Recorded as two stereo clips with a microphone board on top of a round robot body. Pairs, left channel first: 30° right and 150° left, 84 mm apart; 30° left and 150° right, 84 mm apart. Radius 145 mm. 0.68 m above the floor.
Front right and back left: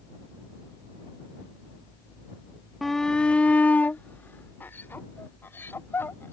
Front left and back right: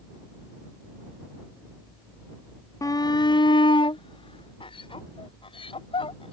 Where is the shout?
60° left; by 6.3 s 35° left.